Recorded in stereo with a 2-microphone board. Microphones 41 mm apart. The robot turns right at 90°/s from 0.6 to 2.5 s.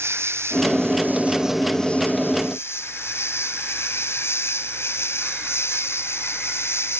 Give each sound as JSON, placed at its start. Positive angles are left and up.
{"t": 0.0, "sound": "an insect", "azimuth_deg": -95}